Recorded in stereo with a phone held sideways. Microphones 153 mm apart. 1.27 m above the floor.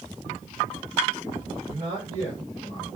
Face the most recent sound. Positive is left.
turn(degrees=-50)  # may be behind; listen again after turning